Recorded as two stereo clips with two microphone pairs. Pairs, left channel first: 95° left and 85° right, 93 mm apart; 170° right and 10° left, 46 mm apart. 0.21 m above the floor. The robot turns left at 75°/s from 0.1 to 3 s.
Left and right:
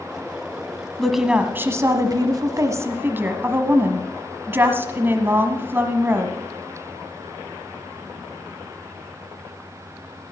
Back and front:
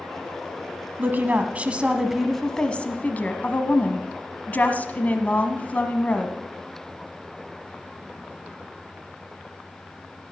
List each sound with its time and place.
1.0 s a woman speaking: 15° left, 1.3 m; by 6.3 s 135° right, 1.3 m